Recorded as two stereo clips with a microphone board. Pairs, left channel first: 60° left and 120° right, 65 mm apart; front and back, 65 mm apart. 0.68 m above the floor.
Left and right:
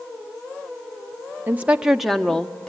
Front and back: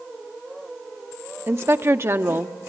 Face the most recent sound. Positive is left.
turn(degrees=135)